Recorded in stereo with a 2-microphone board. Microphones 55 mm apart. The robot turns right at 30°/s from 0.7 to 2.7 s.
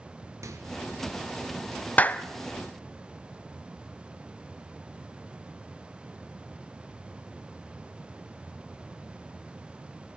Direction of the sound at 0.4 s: 70° right (ahead or behind).